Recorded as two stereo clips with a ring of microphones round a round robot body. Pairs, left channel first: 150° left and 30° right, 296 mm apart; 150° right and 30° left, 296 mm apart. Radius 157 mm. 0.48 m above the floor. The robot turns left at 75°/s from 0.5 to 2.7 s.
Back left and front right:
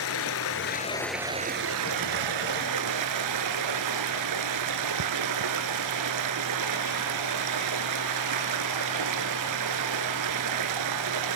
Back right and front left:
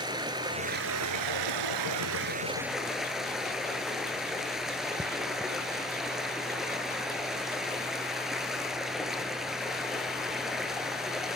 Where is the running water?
105° left, 0.9 m; by 11.4 s 60° right, 0.9 m.